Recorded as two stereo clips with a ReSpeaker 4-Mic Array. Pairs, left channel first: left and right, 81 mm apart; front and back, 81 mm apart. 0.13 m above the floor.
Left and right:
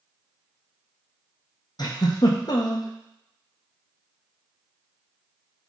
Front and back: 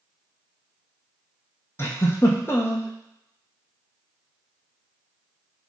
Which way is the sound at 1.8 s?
60° left.